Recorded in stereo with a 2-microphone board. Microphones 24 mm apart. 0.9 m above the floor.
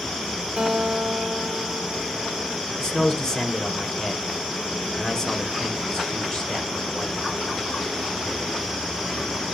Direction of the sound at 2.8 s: 25° left (ahead or behind).